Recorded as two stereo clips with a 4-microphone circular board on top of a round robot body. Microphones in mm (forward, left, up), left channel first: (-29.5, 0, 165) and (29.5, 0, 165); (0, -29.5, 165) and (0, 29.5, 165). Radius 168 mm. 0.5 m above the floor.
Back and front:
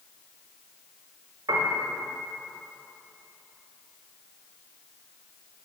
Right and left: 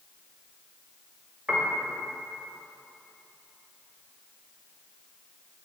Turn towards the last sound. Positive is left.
turn(degrees=10)